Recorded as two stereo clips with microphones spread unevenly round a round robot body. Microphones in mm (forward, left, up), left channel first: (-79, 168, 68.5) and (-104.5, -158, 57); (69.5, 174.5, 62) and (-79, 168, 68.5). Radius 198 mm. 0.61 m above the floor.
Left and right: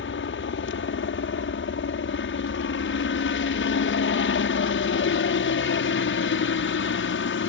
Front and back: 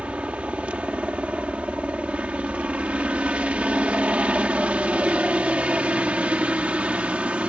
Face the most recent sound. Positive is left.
turn(degrees=105)